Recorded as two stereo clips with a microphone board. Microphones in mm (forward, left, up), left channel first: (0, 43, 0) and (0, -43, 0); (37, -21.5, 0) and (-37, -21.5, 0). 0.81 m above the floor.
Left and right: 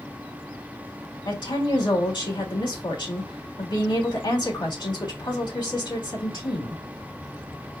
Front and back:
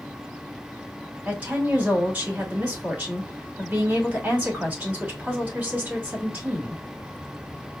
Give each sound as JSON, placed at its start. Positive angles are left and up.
{"t": 1.2, "sound": "a woman speaking", "azimuth_deg": 110, "distance_m": 2.0}